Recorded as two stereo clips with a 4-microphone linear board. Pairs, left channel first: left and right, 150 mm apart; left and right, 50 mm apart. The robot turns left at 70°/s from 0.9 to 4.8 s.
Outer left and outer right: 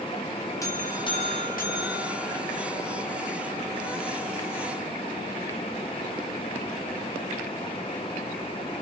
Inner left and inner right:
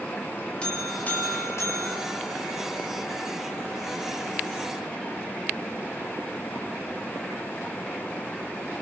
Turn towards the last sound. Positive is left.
turn(degrees=-115)